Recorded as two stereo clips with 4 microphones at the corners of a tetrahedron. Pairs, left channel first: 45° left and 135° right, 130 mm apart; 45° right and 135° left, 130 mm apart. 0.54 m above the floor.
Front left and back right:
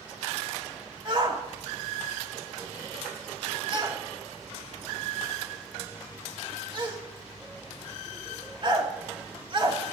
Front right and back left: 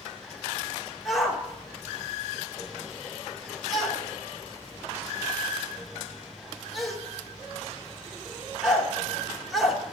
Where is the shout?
135° right, 0.9 m.